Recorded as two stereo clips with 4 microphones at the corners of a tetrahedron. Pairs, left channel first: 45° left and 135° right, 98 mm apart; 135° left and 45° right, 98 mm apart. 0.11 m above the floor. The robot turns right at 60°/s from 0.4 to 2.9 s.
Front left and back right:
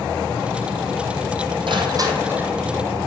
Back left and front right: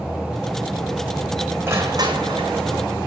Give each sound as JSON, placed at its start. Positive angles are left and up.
{"t": 1.7, "sound": "crushing", "azimuth_deg": -110, "distance_m": 1.6}